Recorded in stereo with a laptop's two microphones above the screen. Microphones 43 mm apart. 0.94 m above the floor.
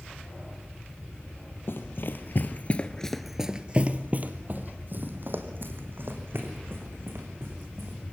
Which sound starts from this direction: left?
Running footsteps, at 1.7 s.